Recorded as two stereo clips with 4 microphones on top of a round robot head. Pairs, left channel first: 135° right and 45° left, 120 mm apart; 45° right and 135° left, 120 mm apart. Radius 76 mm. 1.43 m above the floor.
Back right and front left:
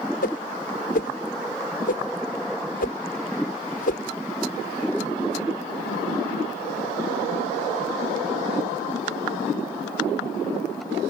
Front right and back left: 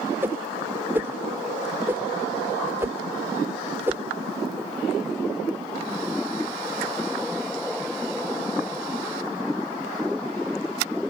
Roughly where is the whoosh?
Behind right.